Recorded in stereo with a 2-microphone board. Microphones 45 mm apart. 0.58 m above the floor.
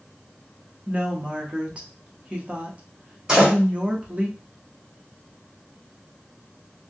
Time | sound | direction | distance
0.9 | a woman speaking | 30° right (ahead or behind) | 0.8 m
3.3 | a door slam | 15° right (ahead or behind) | 1.8 m